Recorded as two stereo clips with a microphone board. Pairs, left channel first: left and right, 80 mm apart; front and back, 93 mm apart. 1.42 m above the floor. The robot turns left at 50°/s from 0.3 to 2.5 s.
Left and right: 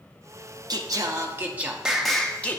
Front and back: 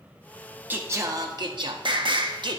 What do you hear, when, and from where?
0.7 s singing: 115° right, 0.7 m; by 2.6 s 155° left, 0.7 m